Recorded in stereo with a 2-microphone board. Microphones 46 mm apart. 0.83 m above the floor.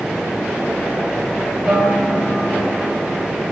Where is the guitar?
15° right (ahead or behind), 4 m.